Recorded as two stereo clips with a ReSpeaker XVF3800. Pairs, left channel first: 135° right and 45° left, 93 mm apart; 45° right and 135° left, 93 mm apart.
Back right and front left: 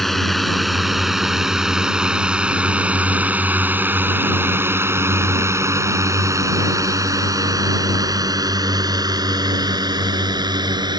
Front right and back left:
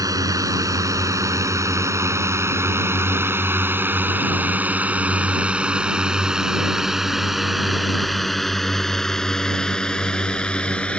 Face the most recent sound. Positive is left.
turn(degrees=30)